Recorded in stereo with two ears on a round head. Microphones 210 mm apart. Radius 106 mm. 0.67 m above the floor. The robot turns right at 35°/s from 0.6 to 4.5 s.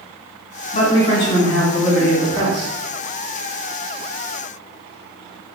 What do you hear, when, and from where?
0.7 s a man speaking: 140° left, 1.5 m; by 2.8 s 150° right, 1.5 m